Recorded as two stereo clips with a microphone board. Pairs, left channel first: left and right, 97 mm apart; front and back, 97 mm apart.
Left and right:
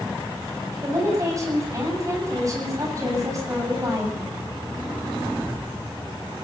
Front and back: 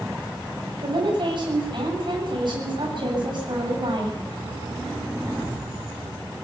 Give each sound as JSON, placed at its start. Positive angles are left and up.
{"t": 0.8, "sound": "a woman speaking", "azimuth_deg": -145, "distance_m": 8.0}